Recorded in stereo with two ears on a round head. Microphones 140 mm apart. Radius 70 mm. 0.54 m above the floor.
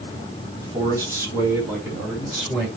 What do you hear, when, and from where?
0.6 s a man speaking: 25° right (ahead or behind), 4 m; by 2.7 s 10° right (ahead or behind), 5.5 m